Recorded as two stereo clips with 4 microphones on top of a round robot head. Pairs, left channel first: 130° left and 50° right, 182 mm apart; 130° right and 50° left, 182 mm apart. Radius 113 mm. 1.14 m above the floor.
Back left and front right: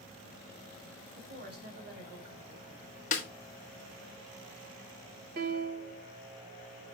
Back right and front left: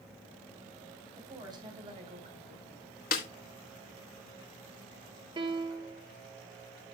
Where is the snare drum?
175° right, 1.7 m.